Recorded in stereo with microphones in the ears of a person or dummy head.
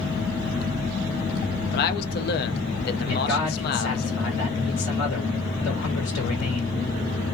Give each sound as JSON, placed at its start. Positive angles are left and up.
{"t": 1.7, "sound": "a man speaking", "side_deg": 55, "distance_m": 0.5}
{"t": 3.1, "sound": "a man speaking", "side_deg": 70, "distance_m": 1.4}